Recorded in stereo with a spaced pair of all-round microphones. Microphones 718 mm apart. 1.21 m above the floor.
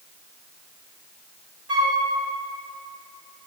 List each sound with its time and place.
1.7 s a flute: 35° right (ahead or behind), 1.4 m